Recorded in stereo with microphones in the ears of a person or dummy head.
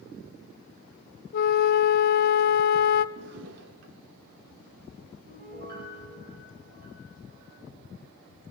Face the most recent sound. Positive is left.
turn(degrees=-60)  # may be behind; listen again after turning